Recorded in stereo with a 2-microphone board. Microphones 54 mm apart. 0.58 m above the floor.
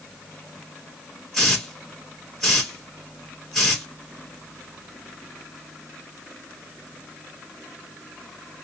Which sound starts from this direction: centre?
A hiss, at 1.3 s.